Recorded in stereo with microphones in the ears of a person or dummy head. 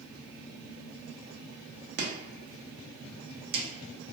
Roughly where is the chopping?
Right.